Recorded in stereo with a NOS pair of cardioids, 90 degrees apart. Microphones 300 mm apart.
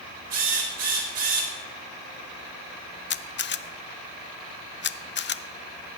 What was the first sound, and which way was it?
A drill, 60° right.